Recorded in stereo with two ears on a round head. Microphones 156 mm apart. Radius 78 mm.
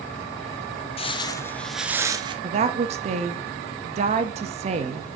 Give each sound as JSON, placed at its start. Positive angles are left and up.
{"t": 1.0, "sound": "footsteps", "side_deg": 35, "distance_m": 0.8}
{"t": 2.4, "sound": "a woman speaking", "side_deg": -40, "distance_m": 0.9}